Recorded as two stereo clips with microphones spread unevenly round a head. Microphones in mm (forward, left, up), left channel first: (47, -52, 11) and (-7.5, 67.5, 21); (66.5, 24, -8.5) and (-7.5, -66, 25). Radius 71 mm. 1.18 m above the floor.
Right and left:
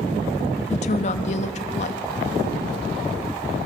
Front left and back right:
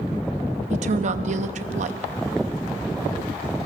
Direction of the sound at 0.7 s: 110° right.